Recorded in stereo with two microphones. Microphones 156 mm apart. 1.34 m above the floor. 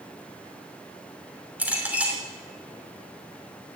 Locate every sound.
1.6 s a clink: 10° right (ahead or behind), 3 m